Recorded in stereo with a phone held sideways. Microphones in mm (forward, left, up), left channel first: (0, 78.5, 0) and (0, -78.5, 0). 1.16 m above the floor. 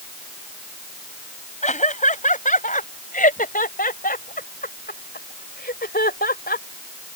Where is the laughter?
50° left (ahead or behind); by 6.7 s 85° left.